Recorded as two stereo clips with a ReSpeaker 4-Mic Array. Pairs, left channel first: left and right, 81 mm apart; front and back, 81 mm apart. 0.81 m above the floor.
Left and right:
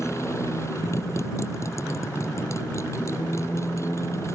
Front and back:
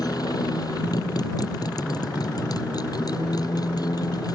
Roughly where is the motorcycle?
Ahead left.